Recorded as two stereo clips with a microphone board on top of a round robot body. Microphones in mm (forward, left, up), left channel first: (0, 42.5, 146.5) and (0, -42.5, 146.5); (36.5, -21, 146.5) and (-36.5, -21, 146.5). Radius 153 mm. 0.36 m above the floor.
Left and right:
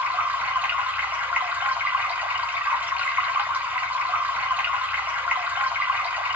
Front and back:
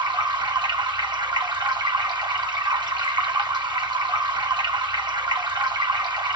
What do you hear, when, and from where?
0.0 s running water: 160° right, 1.5 m